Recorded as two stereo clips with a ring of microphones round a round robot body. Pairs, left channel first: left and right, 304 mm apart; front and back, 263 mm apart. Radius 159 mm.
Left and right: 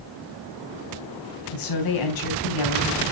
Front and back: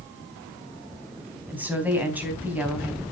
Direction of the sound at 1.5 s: 95° left.